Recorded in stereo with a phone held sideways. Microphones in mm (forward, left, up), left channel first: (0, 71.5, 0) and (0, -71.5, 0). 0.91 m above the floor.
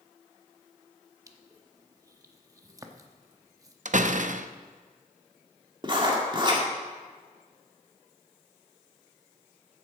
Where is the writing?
35° right (ahead or behind), 2.0 m.